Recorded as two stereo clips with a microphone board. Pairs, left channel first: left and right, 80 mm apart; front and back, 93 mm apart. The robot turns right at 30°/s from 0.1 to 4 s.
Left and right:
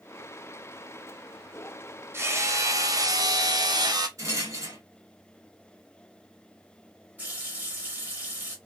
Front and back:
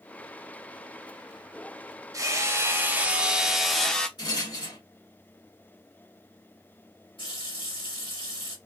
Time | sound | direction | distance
2.1 | hammering | 140° right | 0.7 m
4.2 | a rattle | 40° right | 2 m
7.2 | a running tap | 20° right | 2.5 m